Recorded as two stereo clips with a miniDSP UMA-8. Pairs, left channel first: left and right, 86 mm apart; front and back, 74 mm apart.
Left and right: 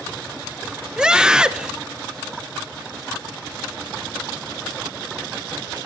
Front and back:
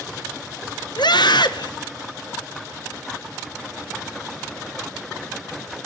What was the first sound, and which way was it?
A scream, 10° right.